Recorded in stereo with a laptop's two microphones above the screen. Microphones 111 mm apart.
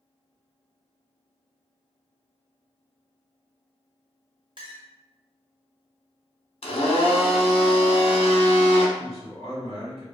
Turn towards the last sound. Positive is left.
turn(degrees=-60)  # may be behind; listen again after turning